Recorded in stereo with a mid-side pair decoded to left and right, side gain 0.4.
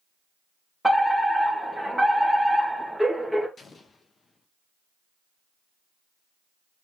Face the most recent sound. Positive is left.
turn(degrees=45)